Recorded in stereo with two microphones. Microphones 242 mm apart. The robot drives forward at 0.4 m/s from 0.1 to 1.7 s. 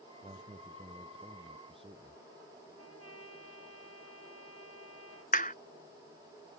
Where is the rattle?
No rattle in this recording.